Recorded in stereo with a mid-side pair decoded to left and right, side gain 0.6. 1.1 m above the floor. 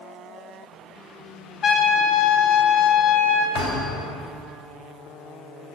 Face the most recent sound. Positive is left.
turn(degrees=65)